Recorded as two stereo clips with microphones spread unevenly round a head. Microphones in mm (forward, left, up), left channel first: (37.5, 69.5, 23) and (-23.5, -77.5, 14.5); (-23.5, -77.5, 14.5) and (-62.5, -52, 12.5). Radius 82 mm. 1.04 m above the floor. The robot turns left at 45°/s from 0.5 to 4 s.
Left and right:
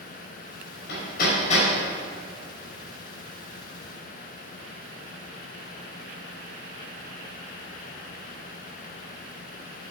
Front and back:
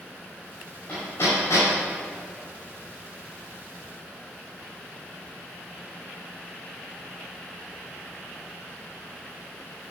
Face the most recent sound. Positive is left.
turn(degrees=-95)